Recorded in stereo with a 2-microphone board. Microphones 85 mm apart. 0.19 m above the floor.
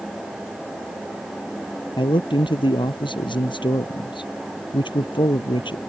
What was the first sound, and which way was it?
A man speaking, 70° left (ahead or behind).